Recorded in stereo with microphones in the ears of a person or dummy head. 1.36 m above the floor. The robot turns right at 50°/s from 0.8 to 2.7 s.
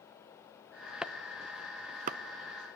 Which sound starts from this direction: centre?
Chopping, at 1.0 s.